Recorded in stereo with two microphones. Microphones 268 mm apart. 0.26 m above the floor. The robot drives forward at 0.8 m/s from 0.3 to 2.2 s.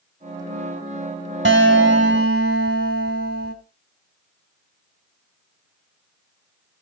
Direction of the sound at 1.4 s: 45° right (ahead or behind).